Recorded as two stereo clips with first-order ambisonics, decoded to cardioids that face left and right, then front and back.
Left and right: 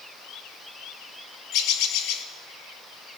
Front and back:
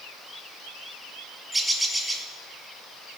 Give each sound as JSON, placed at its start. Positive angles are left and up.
{"t": 1.5, "sound": "a bird", "azimuth_deg": 100, "distance_m": 0.9}